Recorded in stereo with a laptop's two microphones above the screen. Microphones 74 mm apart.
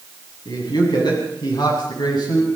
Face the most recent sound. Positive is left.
turn(degrees=80)